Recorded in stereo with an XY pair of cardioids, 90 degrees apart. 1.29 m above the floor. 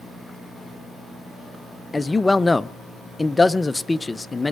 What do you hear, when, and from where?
1.9 s a man speaking: 25° left, 0.6 m